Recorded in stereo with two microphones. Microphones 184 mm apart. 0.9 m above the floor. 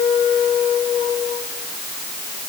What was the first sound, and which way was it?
Only background noise.